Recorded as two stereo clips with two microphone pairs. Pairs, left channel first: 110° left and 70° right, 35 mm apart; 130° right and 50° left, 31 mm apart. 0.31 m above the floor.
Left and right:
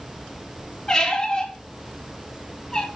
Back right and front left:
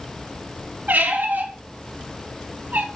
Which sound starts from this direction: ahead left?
A squeak, at 0.9 s.